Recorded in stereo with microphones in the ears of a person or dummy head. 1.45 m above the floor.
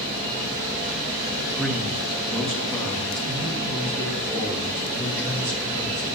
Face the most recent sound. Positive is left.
turn(degrees=15)  # may be behind; listen again after turning